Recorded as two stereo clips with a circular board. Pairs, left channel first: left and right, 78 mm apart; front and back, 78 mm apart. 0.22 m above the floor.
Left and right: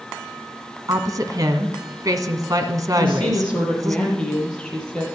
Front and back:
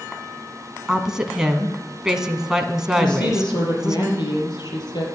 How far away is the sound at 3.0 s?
About 6 m.